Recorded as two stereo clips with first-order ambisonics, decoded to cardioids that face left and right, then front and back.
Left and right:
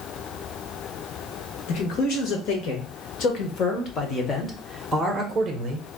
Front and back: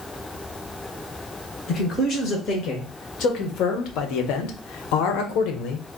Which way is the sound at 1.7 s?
65° left.